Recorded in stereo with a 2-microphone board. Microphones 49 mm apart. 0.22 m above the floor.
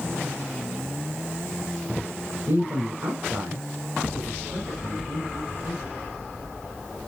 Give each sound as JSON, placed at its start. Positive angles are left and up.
{"t": 2.5, "sound": "a man speaking", "side_deg": -55, "distance_m": 2.5}